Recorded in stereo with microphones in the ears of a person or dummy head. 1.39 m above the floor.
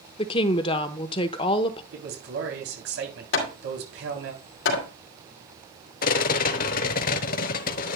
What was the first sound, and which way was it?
A woman speaking, 25° left (ahead or behind).